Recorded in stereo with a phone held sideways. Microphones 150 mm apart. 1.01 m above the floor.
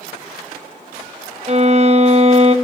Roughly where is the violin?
Right.